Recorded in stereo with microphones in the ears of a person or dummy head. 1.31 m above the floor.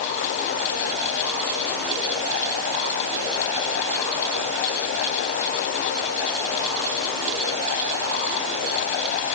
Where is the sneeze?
I don't hear a sneeze.